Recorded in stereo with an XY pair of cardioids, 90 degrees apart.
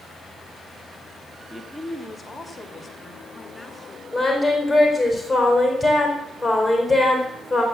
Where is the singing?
Straight ahead, 4.5 m.